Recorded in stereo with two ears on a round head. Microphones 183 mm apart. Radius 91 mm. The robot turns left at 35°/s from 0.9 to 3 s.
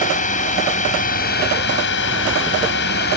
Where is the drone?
40° left (ahead or behind); by 3.2 s 55° left (ahead or behind).